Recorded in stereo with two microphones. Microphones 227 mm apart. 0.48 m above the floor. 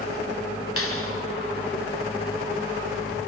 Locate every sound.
0.8 s a clap: 75° left (ahead or behind), 3 m